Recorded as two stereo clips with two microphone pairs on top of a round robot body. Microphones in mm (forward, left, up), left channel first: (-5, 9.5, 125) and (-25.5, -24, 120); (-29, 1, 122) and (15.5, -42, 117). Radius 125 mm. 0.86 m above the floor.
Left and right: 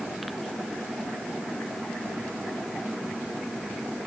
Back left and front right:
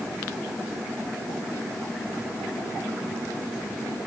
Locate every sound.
Only background noise.